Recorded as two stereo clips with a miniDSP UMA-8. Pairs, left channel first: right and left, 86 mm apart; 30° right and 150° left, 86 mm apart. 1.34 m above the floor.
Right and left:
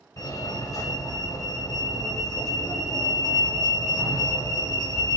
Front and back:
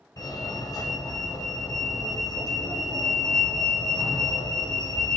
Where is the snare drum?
I don't hear a snare drum.